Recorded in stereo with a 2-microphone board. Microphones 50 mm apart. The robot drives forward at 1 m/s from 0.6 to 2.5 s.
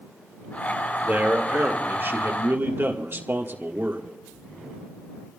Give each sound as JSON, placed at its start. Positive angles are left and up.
{"t": 1.0, "sound": "a man speaking", "side_deg": -35, "distance_m": 2.0}